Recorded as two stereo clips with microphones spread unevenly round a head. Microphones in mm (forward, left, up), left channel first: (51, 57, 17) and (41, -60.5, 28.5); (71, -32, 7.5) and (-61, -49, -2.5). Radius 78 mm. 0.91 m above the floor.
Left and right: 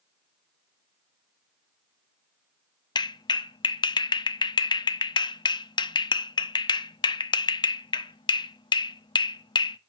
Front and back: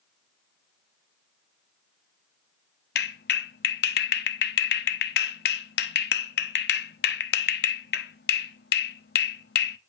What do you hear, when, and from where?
3.0 s a clap: 30° left, 0.8 m